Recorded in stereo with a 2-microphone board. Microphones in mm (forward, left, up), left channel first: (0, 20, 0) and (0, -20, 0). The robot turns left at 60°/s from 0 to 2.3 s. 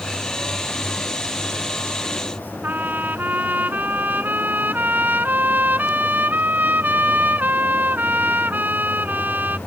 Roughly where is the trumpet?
Right.